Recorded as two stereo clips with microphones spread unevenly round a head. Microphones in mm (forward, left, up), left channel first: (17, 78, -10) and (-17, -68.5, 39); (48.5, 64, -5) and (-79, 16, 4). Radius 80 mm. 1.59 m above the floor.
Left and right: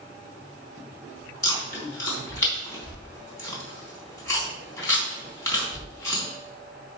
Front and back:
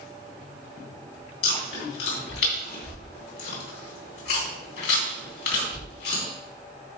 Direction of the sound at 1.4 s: 5° left.